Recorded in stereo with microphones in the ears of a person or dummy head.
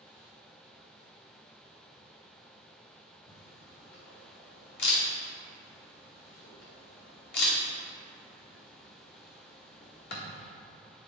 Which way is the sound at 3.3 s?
65° left (ahead or behind).